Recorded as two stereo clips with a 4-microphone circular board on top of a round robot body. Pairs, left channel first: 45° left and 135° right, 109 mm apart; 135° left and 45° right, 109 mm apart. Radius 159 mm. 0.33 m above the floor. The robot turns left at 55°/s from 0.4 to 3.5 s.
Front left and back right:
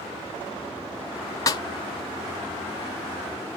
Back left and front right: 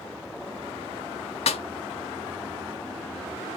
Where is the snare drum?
105° left, 0.6 m; by 1.6 s 95° left, 0.6 m.